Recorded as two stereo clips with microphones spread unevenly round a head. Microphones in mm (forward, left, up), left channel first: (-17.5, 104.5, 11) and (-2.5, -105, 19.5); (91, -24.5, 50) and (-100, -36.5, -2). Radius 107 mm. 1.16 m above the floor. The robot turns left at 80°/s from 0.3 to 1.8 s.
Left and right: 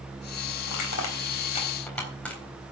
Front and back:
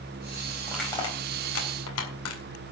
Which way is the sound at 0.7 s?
100° left.